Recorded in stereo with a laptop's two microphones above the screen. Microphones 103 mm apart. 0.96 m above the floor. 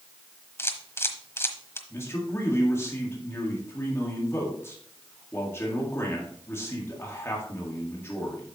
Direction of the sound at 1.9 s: 25° left (ahead or behind).